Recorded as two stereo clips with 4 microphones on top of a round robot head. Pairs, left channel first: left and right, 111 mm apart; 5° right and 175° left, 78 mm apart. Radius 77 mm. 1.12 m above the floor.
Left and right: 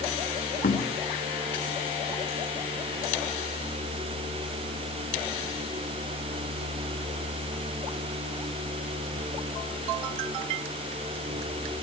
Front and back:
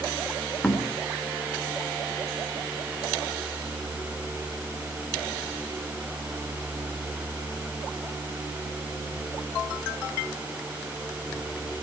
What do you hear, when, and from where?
0.6 s knocking: 70° left, 3 m